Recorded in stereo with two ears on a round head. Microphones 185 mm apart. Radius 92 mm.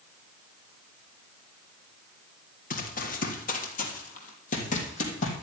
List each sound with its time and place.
2.7 s running footsteps: 40° left (ahead or behind), 2.5 m